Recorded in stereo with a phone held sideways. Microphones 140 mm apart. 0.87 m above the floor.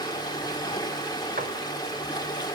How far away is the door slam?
About 2.5 m.